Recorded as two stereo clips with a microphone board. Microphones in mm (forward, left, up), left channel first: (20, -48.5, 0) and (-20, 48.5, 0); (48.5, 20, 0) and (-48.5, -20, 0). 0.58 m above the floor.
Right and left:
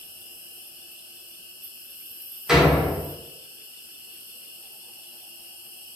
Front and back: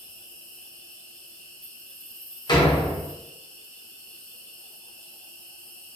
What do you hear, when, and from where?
0.0 s an insect: 100° left, 0.7 m
2.5 s a door slam: 30° left, 0.5 m